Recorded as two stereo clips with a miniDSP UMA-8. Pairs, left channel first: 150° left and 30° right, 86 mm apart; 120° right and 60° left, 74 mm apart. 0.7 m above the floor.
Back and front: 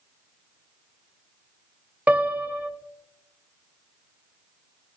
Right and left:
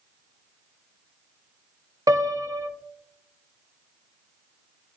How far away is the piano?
About 0.5 m.